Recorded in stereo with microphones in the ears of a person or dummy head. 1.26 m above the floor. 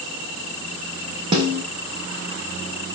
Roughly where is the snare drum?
Right.